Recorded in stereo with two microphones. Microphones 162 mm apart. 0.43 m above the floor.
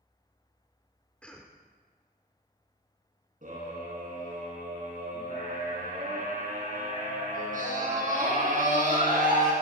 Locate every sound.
1.2 s a cough: 5° left (ahead or behind), 0.8 m
3.4 s a scream: 55° right (ahead or behind), 4 m